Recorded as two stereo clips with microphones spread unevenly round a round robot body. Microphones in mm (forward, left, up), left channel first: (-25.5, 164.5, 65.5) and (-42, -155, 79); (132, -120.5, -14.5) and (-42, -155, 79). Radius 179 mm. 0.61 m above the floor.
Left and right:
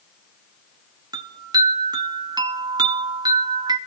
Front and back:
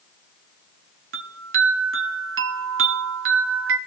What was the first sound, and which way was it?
A chime, 170° right.